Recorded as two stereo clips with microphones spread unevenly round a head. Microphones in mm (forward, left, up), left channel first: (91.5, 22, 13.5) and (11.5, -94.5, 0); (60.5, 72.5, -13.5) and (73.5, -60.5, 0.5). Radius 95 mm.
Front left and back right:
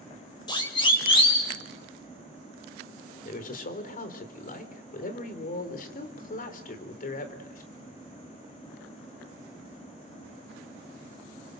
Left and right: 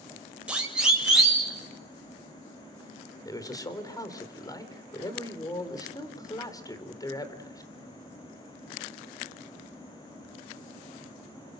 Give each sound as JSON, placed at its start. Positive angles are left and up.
{"t": 0.5, "sound": "a siren", "azimuth_deg": -5, "distance_m": 5.5}
{"t": 3.2, "sound": "a man speaking", "azimuth_deg": 30, "distance_m": 4.0}